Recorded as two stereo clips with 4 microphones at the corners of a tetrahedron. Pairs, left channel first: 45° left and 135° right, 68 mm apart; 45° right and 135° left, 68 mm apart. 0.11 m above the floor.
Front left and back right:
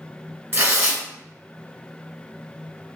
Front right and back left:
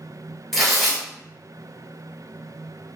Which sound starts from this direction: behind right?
Tearing paper, at 0.5 s.